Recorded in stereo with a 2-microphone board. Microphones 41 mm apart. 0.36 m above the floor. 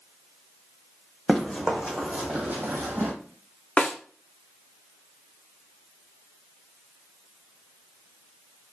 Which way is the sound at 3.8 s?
35° left (ahead or behind).